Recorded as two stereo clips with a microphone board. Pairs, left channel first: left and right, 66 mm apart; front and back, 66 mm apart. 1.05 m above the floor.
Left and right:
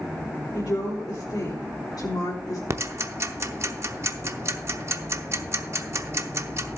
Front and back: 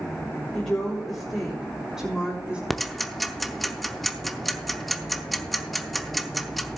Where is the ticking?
90° right, 0.7 m.